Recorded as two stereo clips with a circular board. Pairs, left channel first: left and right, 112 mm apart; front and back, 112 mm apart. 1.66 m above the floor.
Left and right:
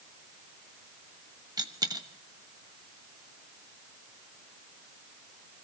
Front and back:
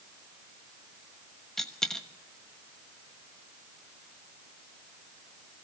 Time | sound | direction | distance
1.6 | a dropped coin | 85° right | 1.1 m